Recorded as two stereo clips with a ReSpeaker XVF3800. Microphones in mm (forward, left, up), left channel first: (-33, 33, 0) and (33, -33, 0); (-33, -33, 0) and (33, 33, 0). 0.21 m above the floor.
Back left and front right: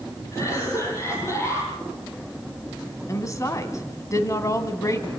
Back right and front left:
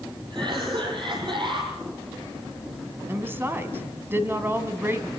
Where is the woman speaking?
100° left, 2 m.